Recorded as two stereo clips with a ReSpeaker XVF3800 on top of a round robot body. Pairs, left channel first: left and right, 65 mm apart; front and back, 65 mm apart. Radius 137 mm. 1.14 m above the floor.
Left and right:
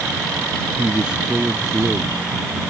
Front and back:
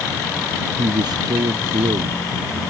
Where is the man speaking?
165° right.